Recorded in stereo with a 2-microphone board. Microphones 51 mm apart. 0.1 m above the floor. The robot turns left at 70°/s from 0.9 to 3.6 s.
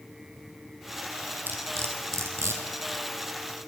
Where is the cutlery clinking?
40° right (ahead or behind), 1.9 m; by 2.6 s 55° right (ahead or behind), 1.9 m.